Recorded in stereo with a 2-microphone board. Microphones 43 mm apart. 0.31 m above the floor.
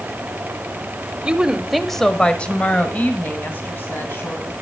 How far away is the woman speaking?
About 1.0 m.